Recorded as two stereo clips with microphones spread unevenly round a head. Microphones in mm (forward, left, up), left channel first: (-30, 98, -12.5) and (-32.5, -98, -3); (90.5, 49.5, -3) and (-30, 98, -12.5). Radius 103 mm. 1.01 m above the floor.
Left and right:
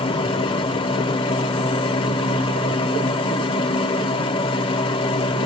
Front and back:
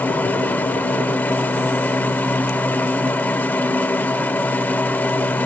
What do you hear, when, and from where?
0.0 s a machine running: 40° left, 0.8 m